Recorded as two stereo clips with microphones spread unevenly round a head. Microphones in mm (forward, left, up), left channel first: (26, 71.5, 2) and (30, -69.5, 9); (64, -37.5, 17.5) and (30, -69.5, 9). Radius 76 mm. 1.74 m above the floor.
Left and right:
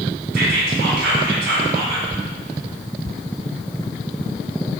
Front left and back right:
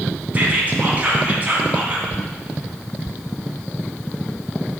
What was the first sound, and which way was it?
Whispering, 85° right.